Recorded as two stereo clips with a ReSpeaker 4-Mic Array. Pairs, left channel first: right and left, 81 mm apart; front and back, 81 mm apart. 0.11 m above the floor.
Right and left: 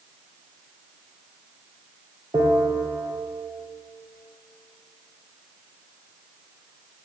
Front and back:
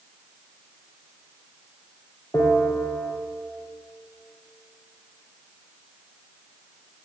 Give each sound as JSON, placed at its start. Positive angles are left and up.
{"t": 2.3, "sound": "a bell", "azimuth_deg": 55, "distance_m": 3.5}